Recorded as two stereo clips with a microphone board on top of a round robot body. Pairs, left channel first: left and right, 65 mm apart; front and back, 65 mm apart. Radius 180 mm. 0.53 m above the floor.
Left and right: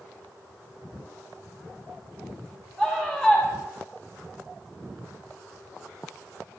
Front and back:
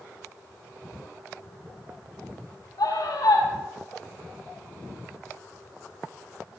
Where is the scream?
15° right, 5 m.